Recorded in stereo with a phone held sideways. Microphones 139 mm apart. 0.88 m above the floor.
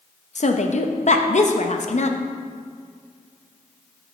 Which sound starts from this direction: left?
A woman speaking, at 0.3 s.